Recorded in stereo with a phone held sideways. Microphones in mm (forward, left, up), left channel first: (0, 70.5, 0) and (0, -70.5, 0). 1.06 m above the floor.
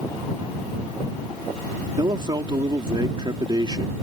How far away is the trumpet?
No trumpet in this recording.